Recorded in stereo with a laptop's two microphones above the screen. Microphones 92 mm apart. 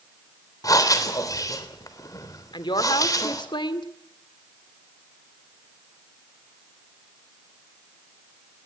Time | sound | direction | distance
0.6 | breathing | 40° left (ahead or behind) | 3 m
2.5 | a woman speaking | 60° left (ahead or behind) | 2.5 m